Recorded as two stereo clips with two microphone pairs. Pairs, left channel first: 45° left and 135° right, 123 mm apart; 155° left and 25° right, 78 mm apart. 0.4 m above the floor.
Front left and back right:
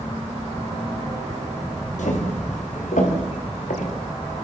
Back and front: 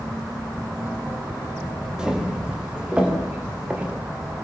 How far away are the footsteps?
About 8 m.